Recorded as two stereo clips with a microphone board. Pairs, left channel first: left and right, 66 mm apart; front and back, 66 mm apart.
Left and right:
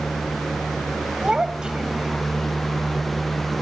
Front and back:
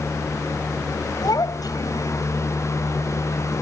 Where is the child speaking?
10° right.